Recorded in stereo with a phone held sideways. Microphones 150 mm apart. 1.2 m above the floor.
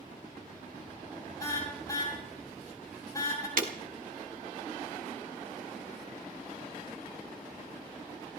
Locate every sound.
1.4 s a car horn: 25° left (ahead or behind), 6.5 m
3.6 s breaking glass: 65° right (ahead or behind), 1.8 m